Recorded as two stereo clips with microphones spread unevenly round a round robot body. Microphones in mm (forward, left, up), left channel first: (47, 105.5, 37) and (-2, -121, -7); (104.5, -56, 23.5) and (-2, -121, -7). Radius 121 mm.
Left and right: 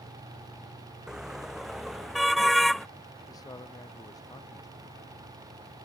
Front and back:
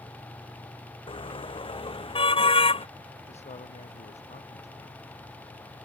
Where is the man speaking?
5° left.